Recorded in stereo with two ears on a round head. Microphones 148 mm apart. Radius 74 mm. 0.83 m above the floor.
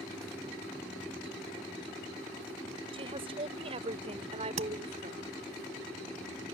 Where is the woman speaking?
35° right (ahead or behind); by 5.2 s 45° right (ahead or behind).